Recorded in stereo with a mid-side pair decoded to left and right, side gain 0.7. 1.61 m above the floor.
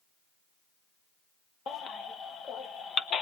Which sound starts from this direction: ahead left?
A baby crying, at 1.7 s.